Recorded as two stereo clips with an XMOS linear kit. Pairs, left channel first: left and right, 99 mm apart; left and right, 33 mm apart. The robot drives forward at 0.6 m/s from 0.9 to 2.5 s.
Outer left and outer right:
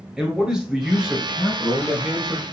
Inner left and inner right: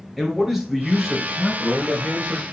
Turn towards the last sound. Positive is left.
turn(degrees=-5)  # may be behind; listen again after turning